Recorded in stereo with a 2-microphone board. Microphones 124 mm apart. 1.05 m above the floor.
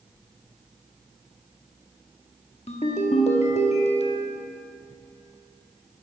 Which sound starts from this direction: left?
A ringtone, at 2.7 s.